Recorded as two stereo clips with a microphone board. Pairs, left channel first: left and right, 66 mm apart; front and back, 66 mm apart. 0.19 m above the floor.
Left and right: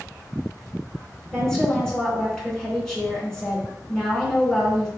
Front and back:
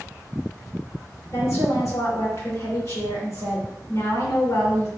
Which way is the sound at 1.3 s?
10° left.